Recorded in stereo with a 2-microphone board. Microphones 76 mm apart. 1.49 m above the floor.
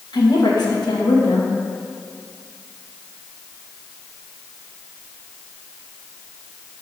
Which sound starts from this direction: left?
A woman speaking, at 0.1 s.